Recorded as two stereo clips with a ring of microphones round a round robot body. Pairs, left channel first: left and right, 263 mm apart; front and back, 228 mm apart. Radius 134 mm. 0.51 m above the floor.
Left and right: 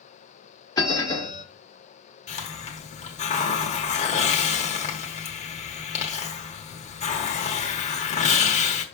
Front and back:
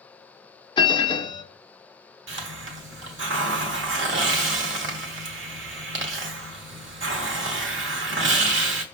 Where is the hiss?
155° left, 1.1 m.